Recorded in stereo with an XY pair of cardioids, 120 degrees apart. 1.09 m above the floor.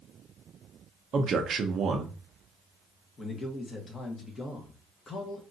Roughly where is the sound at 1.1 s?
Ahead right.